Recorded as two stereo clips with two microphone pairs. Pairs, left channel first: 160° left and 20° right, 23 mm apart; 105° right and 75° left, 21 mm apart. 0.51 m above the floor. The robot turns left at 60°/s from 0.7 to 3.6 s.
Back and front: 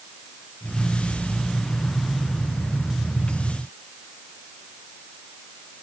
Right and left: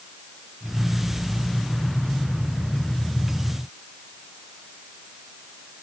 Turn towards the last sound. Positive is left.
No sound to turn to.